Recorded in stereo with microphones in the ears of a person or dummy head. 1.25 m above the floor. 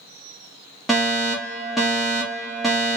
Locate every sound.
0.9 s a fire alarm: centre (ahead or behind), 0.9 m